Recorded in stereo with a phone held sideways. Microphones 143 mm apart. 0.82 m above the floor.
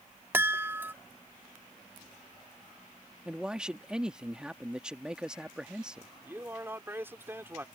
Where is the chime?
15° right (ahead or behind).